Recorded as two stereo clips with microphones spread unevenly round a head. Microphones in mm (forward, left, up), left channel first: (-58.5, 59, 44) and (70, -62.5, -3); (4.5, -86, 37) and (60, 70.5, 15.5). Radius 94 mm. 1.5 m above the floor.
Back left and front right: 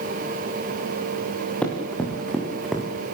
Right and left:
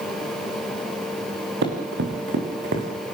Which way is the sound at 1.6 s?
55° left.